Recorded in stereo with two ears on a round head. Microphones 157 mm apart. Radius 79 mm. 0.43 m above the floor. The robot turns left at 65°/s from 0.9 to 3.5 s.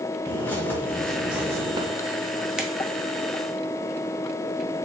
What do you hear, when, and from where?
0.3 s a bird: 15° left, 0.7 m; by 1.9 s 45° right, 0.7 m
2.6 s a finger snap: 5° right (ahead or behind), 0.6 m; by 2.7 s centre (ahead or behind), 0.6 m